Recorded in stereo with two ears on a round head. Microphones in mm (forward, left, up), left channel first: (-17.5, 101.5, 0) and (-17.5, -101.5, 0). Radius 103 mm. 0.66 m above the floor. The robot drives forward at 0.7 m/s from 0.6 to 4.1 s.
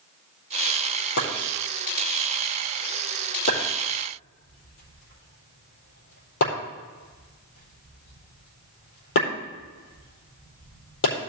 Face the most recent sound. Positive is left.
turn(degrees=60)  # may be behind; listen again after turning